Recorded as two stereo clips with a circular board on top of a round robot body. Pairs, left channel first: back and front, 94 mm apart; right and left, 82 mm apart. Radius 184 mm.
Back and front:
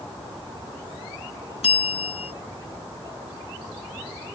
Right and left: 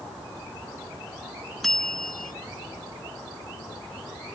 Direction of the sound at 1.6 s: 175° right.